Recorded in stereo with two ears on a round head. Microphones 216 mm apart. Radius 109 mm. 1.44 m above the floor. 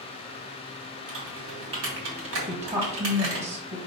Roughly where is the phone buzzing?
I don't hear a phone buzzing.